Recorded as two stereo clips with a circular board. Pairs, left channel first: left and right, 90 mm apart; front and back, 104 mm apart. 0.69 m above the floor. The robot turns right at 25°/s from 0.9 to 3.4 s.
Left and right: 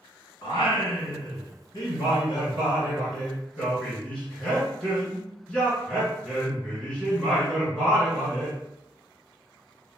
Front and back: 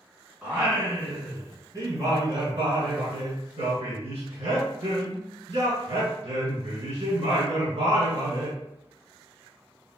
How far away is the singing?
About 1.8 m.